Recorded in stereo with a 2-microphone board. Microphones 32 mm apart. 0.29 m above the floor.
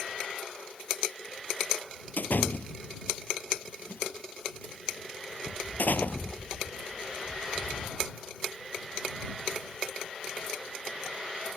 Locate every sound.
2.2 s a door slam: 70° left (ahead or behind)